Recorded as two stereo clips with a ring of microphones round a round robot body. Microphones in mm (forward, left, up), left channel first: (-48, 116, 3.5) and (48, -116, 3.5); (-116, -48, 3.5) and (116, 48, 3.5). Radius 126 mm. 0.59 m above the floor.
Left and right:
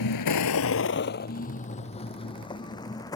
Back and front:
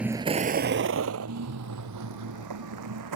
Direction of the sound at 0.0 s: 110° left.